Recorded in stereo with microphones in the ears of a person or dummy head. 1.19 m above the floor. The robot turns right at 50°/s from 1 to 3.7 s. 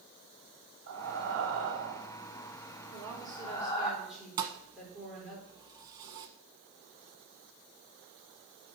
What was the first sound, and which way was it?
Breathing, 65° right (ahead or behind).